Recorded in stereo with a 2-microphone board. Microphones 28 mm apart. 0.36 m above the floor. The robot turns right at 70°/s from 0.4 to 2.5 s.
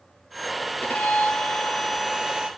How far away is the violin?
About 2 m.